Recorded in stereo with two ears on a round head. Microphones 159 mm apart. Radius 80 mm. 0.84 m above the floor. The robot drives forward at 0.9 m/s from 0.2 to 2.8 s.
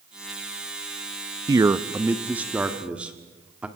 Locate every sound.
1.5 s a man speaking: 20° right (ahead or behind), 0.5 m; by 3.7 s 5° right (ahead or behind), 1.6 m